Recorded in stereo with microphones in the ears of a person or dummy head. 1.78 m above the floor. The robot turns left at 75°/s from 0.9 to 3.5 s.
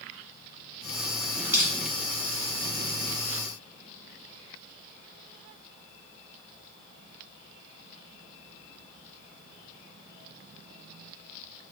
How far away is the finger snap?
I don't hear a finger snap.